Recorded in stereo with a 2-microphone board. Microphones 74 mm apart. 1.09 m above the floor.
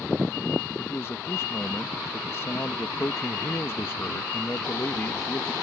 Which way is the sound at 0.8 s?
35° left (ahead or behind).